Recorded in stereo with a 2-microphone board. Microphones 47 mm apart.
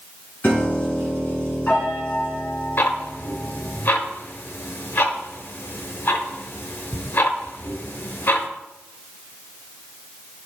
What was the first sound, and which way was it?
A piano, 45° left (ahead or behind).